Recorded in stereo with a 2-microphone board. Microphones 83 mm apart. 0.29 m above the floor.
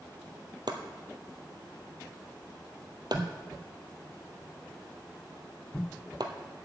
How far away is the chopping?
About 1.2 m.